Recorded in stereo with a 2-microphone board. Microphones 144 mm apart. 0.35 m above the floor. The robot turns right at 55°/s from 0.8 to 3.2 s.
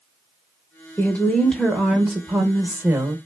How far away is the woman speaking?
About 0.8 m.